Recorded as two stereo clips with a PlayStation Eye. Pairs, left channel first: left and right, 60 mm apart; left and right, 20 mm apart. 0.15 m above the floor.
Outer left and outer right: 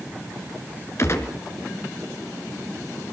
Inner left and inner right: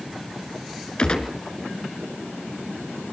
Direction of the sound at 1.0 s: 50° left (ahead or behind).